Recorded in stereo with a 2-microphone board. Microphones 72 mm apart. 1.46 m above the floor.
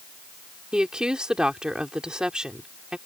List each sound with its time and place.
0.7 s a woman speaking: 10° right (ahead or behind)